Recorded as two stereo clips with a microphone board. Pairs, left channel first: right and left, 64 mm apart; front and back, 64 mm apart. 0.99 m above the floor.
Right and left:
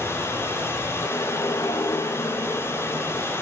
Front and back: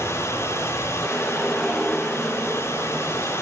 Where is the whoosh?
80° right, 1.0 m.